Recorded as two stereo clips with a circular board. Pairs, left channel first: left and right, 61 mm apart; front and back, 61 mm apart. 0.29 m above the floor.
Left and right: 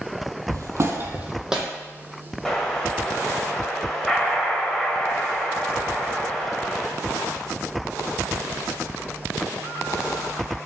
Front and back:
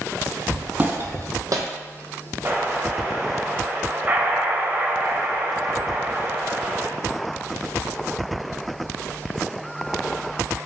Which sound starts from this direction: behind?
An explosion, at 2.5 s.